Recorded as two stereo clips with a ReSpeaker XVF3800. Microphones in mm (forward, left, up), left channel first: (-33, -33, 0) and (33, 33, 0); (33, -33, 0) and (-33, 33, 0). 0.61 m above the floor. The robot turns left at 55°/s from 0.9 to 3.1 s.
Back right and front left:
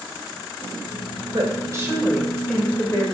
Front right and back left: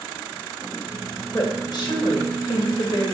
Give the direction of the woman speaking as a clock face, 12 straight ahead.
12 o'clock.